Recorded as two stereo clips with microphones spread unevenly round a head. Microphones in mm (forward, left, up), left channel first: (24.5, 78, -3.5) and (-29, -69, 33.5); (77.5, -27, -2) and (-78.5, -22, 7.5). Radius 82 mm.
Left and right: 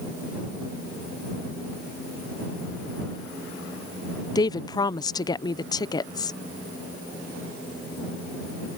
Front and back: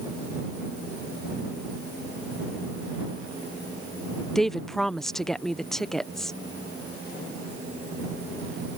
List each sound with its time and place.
4.3 s a woman speaking: 80° left